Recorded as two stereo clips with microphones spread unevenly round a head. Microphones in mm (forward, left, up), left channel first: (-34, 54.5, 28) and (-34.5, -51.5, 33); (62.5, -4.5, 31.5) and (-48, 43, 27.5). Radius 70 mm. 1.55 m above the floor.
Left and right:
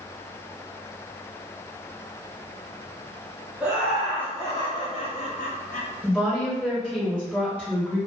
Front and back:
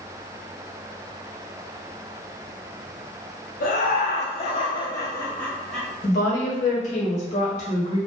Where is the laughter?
10° right, 1.1 m; by 5.9 s 65° left, 1.1 m.